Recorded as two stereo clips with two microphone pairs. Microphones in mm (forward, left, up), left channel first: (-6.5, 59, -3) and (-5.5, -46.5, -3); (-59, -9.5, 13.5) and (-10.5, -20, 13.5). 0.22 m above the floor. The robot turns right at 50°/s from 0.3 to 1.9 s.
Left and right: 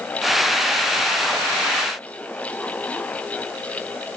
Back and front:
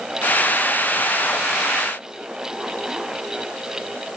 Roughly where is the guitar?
I don't hear a guitar.